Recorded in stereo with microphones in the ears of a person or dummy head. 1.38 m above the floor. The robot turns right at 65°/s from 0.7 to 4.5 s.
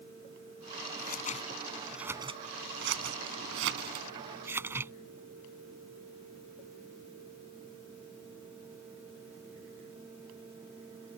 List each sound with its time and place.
1.0 s scissors: 60° left (ahead or behind); by 4.9 s 10° right (ahead or behind)